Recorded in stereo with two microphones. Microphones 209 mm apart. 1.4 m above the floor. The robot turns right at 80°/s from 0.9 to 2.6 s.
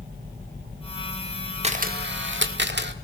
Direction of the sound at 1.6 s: 145° right.